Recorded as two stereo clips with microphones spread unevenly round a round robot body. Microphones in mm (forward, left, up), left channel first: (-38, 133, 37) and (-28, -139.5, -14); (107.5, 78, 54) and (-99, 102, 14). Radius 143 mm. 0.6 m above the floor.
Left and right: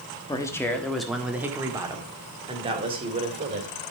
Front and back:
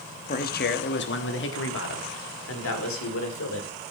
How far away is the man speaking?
About 1.2 m.